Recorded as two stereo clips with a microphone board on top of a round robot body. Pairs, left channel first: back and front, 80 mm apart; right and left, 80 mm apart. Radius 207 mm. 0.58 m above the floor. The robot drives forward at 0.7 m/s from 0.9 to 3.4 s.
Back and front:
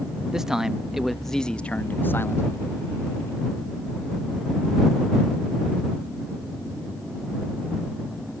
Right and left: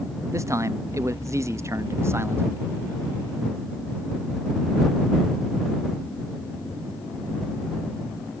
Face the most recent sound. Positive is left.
turn(degrees=150)